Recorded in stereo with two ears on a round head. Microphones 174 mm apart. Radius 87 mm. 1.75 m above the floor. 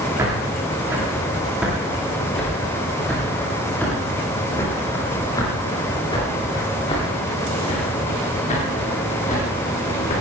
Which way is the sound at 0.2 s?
15° right (ahead or behind).